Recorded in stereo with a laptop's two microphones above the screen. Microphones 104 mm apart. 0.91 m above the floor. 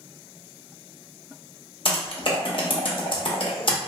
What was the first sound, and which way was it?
Typing on a keyboard, 55° left (ahead or behind).